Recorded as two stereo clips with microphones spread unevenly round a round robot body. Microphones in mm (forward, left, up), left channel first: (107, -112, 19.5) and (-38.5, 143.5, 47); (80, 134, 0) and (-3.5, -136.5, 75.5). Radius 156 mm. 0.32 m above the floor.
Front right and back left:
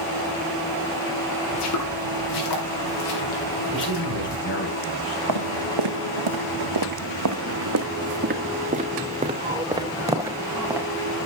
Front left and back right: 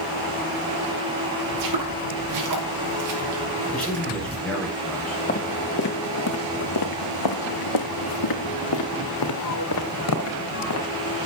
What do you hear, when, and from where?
1.5 s footsteps: 105° right, 4.5 m; by 4.4 s 50° right, 5 m
3.7 s a man speaking: 10° right, 7.5 m
5.3 s footsteps: 140° left, 2.5 m; by 10.9 s 35° left, 4 m